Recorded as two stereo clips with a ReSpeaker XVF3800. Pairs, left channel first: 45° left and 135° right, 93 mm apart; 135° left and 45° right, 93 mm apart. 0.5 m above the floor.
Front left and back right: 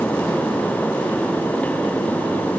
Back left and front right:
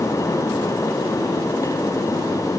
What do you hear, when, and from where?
Only background noise.